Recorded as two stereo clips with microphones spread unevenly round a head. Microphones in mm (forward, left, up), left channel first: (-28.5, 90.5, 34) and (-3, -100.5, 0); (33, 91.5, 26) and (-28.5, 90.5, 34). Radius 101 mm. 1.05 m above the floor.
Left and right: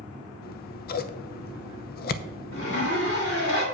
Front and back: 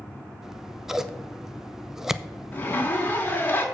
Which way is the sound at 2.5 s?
60° left.